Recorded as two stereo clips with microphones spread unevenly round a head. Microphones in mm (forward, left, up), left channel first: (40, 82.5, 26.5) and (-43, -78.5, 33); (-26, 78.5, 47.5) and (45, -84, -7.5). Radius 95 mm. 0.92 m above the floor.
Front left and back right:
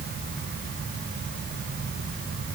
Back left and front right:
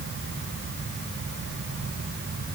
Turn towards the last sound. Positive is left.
No sound to turn to.